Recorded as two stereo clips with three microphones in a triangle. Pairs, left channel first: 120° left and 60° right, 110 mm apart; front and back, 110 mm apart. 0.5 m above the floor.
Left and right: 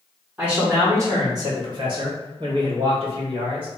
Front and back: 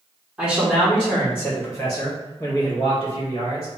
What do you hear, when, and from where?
0.4 s a man speaking: 120° right, 0.9 m; by 3.7 s 30° right, 2 m